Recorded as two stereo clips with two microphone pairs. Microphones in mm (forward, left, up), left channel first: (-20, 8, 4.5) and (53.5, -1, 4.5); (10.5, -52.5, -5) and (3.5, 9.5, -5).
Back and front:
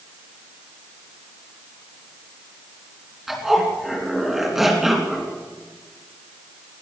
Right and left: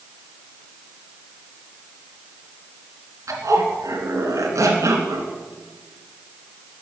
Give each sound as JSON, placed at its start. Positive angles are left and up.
{"t": 3.3, "sound": "a zipper", "azimuth_deg": 80, "distance_m": 3.0}